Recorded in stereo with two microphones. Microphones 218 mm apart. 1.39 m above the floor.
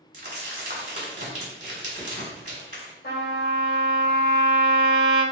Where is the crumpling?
40° right (ahead or behind), 1.5 m.